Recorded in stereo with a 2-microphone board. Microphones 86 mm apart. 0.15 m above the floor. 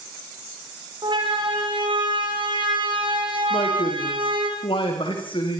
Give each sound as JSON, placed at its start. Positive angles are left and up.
{"t": 1.0, "sound": "a siren", "side_deg": -65, "distance_m": 9.0}
{"t": 3.5, "sound": "a man speaking", "side_deg": 80, "distance_m": 10.0}